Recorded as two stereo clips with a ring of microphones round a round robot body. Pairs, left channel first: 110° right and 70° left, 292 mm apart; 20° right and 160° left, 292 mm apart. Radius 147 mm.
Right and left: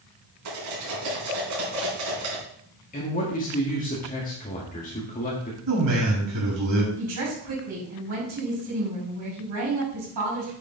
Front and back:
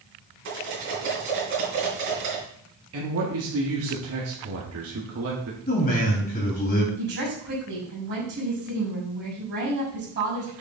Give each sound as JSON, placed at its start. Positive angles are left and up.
{"t": 0.5, "sound": "cutlery clinking", "azimuth_deg": 105, "distance_m": 4.5}
{"t": 2.9, "sound": "a man speaking", "azimuth_deg": -170, "distance_m": 1.7}
{"t": 5.7, "sound": "a man speaking", "azimuth_deg": 40, "distance_m": 5.0}
{"t": 7.0, "sound": "a woman speaking", "azimuth_deg": 105, "distance_m": 5.5}